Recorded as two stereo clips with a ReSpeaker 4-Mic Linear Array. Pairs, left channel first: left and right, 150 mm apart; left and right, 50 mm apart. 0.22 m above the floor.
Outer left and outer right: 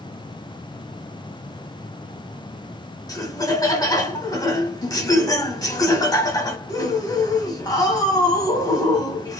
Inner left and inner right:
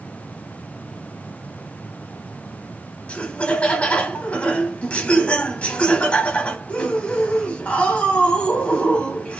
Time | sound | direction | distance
3.1 | laughter | 25° left (ahead or behind) | 1.0 m